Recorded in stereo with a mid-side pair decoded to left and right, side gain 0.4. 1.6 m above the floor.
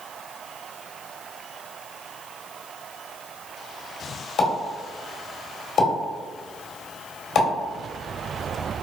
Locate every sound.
4.4 s a pop: 70° left, 1.8 m